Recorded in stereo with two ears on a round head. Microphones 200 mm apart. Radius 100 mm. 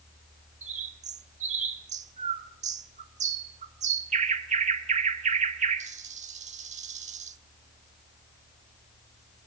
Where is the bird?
35° right (ahead or behind), 1.1 m.